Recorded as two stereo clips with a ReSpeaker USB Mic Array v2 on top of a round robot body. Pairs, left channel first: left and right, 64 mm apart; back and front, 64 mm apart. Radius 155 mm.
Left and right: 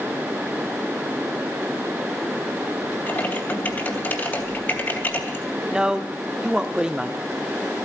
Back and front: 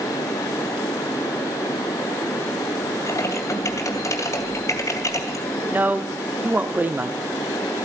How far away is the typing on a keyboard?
About 3 m.